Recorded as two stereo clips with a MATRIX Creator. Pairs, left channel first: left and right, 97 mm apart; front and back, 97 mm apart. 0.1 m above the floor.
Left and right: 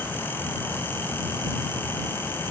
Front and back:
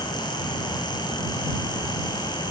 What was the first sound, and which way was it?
Only background noise.